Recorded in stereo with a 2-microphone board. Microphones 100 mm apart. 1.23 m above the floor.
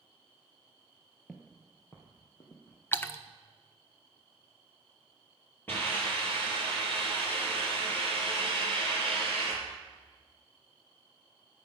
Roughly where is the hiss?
Left.